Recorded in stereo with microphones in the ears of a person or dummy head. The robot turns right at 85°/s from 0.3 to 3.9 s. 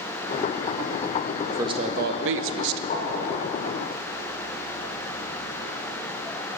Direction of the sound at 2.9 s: 45° left (ahead or behind).